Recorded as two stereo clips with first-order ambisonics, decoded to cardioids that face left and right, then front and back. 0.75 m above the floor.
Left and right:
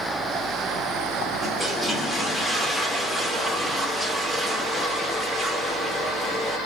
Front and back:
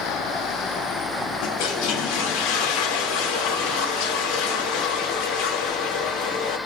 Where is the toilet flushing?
Straight ahead, 0.8 m.